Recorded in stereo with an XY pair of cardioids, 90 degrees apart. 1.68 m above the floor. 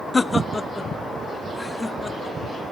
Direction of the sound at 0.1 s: 25° left.